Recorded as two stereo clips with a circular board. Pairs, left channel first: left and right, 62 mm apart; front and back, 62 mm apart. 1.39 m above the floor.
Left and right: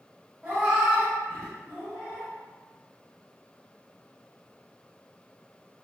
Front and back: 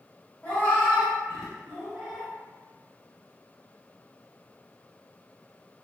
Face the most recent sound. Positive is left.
turn(degrees=110)